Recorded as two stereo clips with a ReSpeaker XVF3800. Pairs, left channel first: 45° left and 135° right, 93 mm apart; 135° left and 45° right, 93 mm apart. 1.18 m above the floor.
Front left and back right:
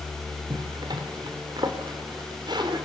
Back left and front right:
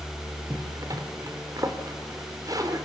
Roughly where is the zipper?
Right.